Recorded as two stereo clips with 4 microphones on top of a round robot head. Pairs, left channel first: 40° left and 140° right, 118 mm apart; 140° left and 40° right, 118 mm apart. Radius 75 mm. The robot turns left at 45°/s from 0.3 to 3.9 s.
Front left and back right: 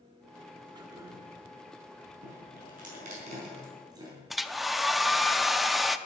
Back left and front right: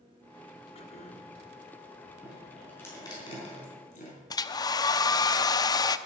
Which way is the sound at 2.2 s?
125° right.